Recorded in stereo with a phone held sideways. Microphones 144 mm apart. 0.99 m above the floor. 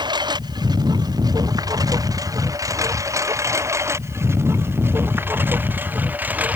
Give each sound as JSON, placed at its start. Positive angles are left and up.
{"t": 0.0, "sound": "a lawn mower", "side_deg": -30}